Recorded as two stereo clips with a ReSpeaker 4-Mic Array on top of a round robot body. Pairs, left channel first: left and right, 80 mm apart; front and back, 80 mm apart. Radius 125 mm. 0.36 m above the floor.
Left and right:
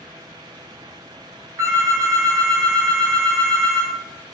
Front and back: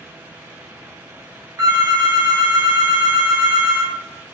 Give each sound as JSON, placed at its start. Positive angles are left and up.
{"t": 1.6, "sound": "a phone ringing", "azimuth_deg": -145, "distance_m": 1.1}